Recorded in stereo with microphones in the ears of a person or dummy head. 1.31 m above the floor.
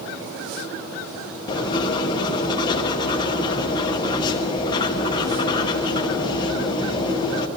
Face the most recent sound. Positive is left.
turn(degrees=20)  # may be behind; listen again after turning